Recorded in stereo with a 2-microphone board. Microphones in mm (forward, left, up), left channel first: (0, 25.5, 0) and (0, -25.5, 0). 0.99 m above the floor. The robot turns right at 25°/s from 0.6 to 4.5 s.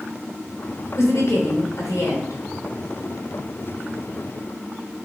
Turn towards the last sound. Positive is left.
turn(degrees=150)